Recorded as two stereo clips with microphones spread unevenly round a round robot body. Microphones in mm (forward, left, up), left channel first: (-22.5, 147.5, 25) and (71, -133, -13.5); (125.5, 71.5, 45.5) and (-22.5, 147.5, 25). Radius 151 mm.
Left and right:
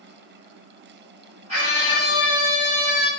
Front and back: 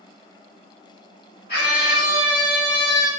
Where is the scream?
5° right, 1.9 m; by 3.1 s 25° right, 2.5 m.